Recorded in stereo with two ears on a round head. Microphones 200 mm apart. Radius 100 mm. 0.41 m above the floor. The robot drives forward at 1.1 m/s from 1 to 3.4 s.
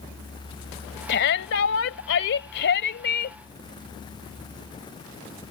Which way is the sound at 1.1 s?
50° left (ahead or behind).